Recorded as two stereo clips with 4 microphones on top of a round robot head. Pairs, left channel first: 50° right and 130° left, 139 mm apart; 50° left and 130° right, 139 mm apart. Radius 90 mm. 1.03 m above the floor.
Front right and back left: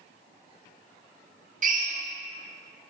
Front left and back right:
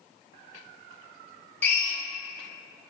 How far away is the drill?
About 1.2 m.